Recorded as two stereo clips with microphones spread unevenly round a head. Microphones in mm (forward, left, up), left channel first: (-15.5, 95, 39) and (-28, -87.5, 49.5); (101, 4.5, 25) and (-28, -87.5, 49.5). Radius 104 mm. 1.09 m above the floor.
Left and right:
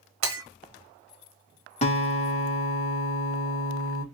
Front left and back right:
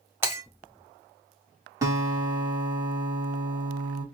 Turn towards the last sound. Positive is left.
turn(degrees=140)